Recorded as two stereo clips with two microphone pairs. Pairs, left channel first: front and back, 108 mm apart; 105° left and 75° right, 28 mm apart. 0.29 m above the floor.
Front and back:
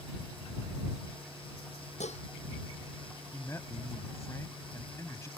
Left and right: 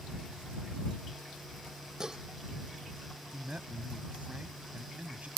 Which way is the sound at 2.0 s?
5° right.